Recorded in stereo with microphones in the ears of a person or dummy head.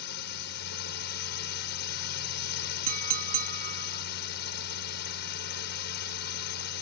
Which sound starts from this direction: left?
A drone, at 0.0 s.